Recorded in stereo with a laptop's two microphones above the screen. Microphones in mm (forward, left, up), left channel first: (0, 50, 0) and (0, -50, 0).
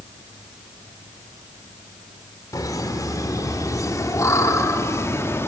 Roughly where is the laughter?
Left.